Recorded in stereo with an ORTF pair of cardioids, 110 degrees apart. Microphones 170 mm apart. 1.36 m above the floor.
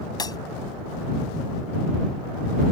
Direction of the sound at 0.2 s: 25° left.